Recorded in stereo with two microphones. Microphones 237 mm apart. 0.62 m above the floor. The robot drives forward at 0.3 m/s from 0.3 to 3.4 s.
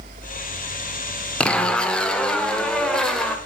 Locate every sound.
1.4 s a zipper: 5° left (ahead or behind), 0.8 m